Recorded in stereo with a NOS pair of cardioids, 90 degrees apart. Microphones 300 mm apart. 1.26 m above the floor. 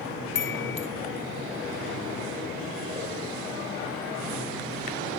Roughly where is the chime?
Ahead left.